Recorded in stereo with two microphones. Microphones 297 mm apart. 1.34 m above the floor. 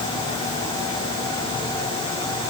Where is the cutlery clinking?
No cutlery clinking in this recording.